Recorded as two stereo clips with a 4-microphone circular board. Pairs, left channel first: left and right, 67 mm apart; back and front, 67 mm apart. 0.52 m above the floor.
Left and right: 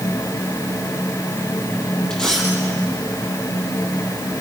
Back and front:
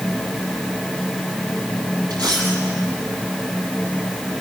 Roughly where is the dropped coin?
Ahead.